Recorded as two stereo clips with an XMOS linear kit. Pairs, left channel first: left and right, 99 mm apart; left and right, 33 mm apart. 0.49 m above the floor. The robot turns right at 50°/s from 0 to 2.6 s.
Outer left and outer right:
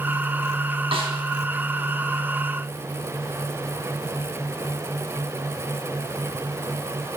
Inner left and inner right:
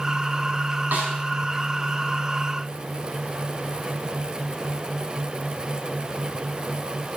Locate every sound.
0.9 s a snare drum: 70° right (ahead or behind), 3 m; by 1.1 s 75° right (ahead or behind), 3 m